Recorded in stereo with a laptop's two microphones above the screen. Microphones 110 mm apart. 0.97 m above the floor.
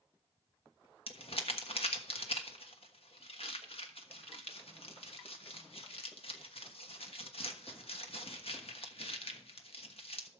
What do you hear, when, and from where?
1.1 s crumpling: 60° left (ahead or behind), 1.2 m